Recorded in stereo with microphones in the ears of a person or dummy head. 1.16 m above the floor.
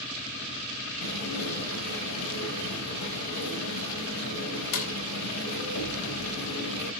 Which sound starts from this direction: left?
Dishes clattering, at 1.0 s.